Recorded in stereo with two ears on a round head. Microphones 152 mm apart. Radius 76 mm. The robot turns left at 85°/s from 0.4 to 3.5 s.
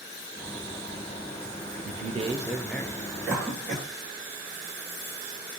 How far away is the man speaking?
About 0.6 m.